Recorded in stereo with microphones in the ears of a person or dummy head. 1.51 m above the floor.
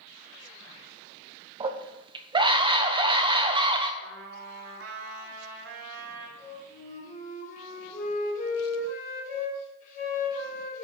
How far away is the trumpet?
About 2.0 m.